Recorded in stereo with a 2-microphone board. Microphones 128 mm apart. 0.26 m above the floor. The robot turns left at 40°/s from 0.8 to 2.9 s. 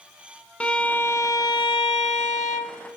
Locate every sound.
0.6 s a violin: 170° left, 0.6 m; by 2.8 s 95° left, 0.6 m